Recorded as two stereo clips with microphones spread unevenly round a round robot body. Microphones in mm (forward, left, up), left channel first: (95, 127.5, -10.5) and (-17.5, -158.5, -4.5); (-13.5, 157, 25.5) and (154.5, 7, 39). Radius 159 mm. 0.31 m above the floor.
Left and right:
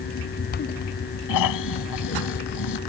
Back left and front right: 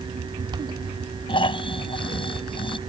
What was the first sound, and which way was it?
Snoring, 75° left.